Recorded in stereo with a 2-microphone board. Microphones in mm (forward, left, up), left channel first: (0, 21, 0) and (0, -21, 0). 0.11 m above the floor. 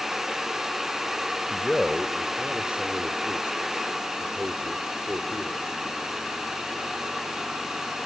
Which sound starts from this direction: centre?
A man speaking, at 1.5 s.